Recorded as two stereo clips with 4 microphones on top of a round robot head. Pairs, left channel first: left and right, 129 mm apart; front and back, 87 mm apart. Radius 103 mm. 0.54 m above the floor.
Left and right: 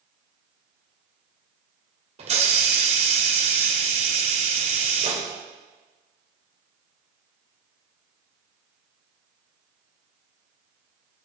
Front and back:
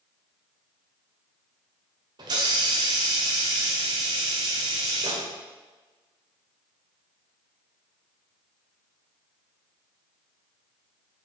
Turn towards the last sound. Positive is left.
turn(degrees=-130)